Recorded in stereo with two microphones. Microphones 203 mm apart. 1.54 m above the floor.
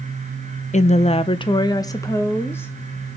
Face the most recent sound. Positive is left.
turn(degrees=10)  # may be behind; listen again after turning